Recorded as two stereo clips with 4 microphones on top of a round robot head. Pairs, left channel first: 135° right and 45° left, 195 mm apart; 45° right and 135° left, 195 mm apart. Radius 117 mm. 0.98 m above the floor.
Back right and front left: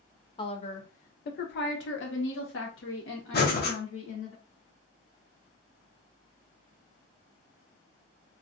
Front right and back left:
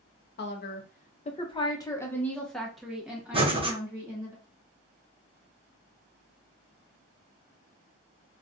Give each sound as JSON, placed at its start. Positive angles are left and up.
{"t": 0.4, "sound": "a woman speaking", "azimuth_deg": -70, "distance_m": 0.9}
{"t": 3.3, "sound": "breathing", "azimuth_deg": -165, "distance_m": 1.3}